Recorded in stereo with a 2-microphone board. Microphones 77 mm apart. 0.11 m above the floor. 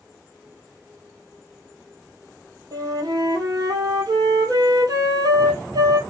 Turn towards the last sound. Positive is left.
turn(degrees=-55)  # may be behind; listen again after turning